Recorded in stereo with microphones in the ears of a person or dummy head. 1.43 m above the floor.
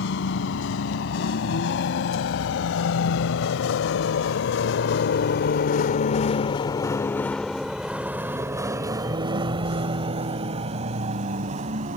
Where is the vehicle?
80° left; by 12.0 s 45° right (ahead or behind).